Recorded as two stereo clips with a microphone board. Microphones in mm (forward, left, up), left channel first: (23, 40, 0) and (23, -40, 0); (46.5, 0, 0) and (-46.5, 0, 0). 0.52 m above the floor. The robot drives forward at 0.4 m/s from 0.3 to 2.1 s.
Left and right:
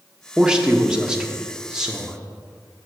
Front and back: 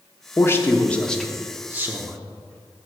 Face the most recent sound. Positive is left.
turn(degrees=-165)